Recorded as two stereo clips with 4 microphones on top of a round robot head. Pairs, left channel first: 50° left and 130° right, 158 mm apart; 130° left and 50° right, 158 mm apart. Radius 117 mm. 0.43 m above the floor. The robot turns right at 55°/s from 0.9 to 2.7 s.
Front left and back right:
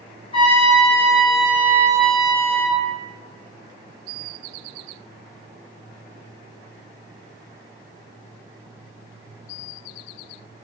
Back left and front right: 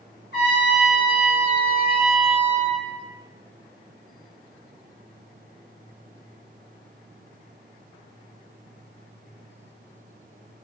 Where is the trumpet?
110° left, 1.3 m; by 2.8 s 155° right, 1.3 m.